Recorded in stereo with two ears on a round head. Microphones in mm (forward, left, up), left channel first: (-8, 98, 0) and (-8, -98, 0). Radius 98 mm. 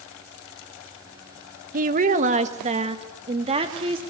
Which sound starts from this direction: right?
A woman speaking, at 1.7 s.